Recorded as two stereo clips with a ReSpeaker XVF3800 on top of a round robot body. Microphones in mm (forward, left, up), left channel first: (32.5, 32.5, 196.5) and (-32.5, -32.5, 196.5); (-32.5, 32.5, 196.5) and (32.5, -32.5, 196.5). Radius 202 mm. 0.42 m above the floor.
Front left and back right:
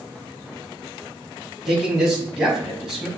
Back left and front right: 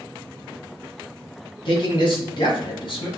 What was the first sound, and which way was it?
A man speaking, 130° left.